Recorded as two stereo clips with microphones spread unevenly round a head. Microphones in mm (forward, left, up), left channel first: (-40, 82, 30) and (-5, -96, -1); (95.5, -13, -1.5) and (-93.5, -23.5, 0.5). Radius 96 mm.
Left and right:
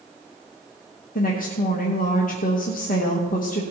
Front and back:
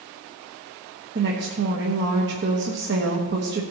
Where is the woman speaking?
150° left, 1.2 m.